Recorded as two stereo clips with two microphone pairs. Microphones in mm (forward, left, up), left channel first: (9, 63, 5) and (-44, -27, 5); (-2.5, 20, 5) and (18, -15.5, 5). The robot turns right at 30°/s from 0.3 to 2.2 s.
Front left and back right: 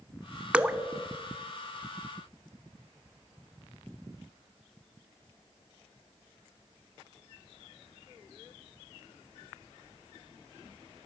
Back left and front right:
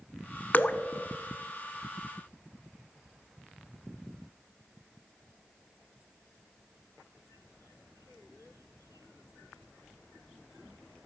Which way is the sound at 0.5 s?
160° left.